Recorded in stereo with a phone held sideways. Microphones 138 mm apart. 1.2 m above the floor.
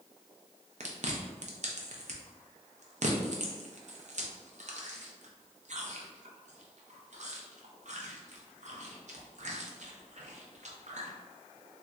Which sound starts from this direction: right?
Chewing, at 0.8 s.